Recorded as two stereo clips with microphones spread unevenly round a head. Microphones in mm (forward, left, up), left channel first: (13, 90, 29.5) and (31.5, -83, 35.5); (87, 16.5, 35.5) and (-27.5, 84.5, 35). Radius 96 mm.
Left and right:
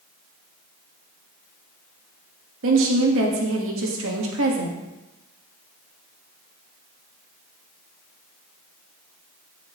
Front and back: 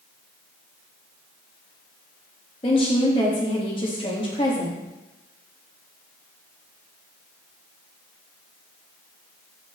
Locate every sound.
2.6 s a woman speaking: 95° right, 1.5 m